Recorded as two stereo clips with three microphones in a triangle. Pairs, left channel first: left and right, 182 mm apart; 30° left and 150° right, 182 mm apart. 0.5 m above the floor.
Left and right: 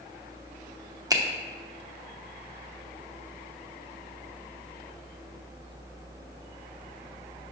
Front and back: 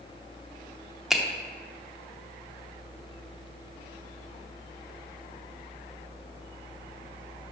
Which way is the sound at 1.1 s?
65° right.